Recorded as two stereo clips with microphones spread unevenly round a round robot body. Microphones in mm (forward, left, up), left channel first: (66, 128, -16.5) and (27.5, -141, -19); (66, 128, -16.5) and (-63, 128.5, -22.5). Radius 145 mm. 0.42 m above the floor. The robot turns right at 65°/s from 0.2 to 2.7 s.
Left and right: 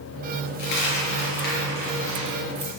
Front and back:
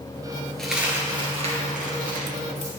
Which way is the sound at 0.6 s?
85° left.